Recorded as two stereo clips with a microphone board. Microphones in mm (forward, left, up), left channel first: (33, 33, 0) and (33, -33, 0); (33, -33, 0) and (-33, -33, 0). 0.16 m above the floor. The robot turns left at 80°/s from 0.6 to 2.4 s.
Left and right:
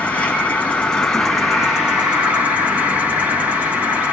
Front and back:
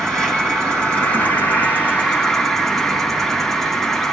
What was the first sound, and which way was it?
An insect, 70° left.